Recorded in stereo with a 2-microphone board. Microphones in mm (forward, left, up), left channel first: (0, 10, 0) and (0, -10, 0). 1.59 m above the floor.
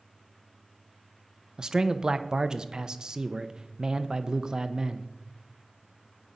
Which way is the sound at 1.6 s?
40° right (ahead or behind).